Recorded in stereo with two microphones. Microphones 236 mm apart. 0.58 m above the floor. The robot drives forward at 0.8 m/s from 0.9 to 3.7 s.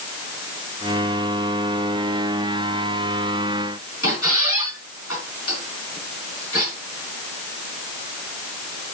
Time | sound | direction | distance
4.0 | a squeak | 75° left (ahead or behind) | 4.5 m